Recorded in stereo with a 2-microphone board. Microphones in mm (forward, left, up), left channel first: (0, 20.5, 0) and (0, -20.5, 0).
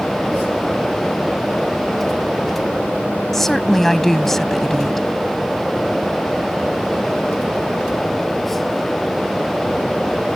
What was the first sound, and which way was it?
A woman speaking, 5° left (ahead or behind).